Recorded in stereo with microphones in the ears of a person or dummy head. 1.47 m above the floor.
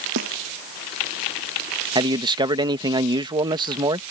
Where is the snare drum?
65° right (ahead or behind).